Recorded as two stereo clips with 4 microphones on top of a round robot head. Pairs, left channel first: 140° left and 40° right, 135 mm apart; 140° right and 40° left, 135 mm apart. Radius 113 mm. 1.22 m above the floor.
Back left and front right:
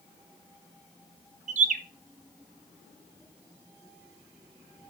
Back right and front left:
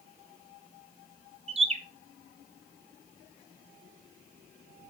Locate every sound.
1.5 s a bird: 5° right, 0.9 m